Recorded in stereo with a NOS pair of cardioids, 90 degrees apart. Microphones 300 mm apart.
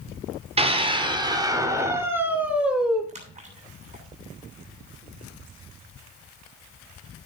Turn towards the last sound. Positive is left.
turn(degrees=-25)